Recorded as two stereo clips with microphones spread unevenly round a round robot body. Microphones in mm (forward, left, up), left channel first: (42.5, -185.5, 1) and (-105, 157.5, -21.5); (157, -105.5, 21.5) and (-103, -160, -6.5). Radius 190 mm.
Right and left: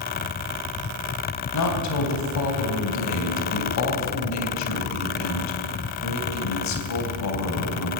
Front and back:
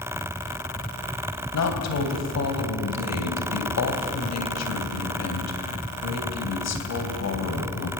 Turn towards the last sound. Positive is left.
turn(degrees=-15)